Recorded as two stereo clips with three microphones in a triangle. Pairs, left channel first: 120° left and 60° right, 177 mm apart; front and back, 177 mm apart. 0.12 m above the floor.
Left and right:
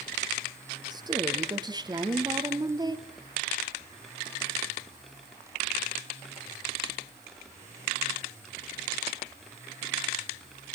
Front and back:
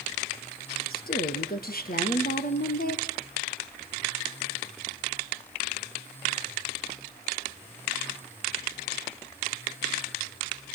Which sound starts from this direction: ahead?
A woman speaking, at 0.9 s.